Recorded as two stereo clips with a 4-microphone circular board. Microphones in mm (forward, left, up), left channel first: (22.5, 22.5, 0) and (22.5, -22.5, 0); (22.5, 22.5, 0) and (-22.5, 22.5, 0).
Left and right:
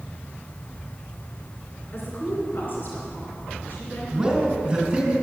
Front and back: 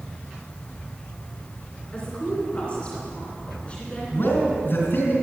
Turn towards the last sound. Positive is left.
turn(degrees=-25)